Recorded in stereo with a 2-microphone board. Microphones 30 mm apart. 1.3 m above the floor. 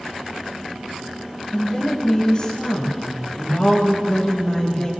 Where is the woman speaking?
30° left (ahead or behind), 6.5 m.